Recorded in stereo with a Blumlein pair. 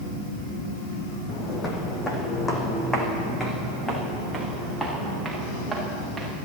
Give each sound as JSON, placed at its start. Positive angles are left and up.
{"t": 1.3, "sound": "footsteps", "azimuth_deg": 25, "distance_m": 3.0}